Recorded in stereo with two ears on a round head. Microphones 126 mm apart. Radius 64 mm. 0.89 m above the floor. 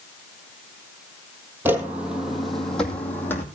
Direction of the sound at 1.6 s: 15° right (ahead or behind).